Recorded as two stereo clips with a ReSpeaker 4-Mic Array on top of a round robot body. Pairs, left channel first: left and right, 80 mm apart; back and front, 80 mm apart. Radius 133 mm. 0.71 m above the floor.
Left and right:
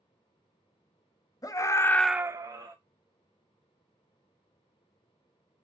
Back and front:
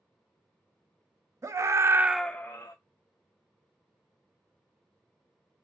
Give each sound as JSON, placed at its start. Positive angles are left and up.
{"t": 1.4, "sound": "a scream", "azimuth_deg": 50, "distance_m": 1.0}